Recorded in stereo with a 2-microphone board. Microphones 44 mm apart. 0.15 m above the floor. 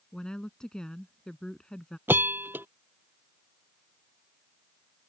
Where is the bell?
45° right (ahead or behind).